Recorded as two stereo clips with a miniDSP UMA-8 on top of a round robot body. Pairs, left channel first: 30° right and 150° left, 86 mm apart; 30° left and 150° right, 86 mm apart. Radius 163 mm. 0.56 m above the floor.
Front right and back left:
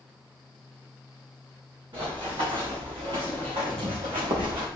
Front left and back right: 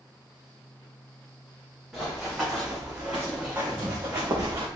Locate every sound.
1.9 s running footsteps: 125° left, 3 m; by 4.7 s 160° left, 2 m